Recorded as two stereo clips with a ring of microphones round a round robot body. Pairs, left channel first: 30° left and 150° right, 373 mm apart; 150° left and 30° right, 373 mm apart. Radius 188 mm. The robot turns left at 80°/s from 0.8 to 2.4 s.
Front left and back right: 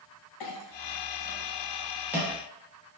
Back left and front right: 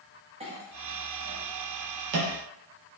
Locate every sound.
0.4 s a clink: 40° left, 0.5 m; by 2.3 s 80° right, 0.5 m